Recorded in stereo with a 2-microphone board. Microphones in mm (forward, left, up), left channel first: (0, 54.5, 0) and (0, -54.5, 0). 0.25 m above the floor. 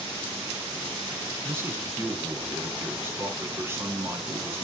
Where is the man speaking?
25° right (ahead or behind), 2 m.